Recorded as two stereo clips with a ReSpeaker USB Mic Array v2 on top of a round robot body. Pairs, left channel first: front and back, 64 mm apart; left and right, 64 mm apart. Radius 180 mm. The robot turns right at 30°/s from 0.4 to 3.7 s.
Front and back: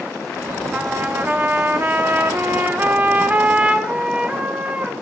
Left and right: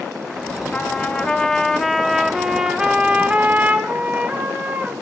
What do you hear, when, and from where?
0.7 s a trumpet: 140° left, 0.9 m; by 4.9 s 130° right, 0.9 m